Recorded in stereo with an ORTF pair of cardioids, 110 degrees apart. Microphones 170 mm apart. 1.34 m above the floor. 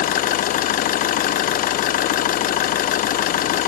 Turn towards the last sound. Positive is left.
turn(degrees=60)